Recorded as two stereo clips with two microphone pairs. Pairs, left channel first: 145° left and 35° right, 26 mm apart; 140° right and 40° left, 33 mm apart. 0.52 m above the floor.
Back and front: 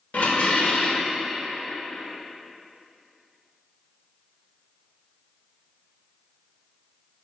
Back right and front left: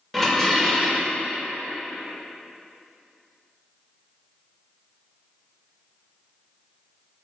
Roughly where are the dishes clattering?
Behind left.